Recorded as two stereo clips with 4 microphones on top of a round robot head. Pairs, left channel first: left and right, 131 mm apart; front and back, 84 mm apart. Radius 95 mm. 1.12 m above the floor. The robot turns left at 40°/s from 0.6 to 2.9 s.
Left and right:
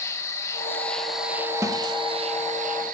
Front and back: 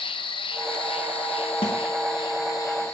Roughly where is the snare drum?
Ahead.